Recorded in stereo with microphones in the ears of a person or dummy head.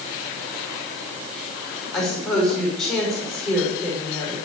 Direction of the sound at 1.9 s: Centre (ahead or behind).